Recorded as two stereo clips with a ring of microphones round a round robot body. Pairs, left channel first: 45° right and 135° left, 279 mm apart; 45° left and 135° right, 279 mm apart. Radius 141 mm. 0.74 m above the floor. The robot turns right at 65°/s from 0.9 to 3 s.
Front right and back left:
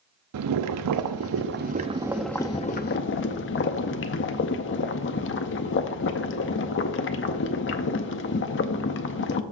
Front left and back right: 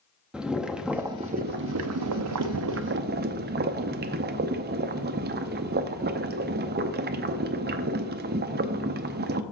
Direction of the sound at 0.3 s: 140° left.